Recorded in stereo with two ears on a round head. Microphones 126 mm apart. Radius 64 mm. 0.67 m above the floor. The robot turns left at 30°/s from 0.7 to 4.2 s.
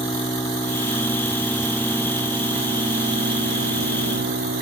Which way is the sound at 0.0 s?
25° left.